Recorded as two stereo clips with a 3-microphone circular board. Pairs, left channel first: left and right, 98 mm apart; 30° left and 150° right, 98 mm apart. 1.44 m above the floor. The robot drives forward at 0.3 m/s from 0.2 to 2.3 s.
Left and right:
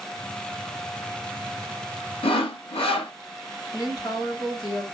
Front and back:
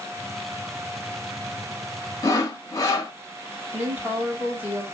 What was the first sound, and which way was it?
Sawing, 80° left.